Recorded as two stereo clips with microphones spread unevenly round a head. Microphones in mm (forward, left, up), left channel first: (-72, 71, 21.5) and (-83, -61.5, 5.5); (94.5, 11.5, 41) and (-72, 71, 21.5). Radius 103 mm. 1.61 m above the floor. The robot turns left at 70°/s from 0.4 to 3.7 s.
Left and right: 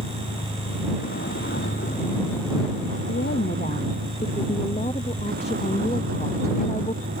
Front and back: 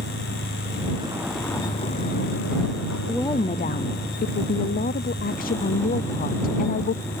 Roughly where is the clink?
No clink in this recording.